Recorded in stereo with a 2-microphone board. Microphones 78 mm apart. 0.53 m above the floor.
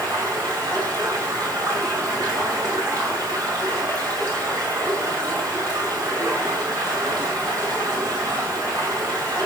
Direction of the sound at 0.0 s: 45° right (ahead or behind).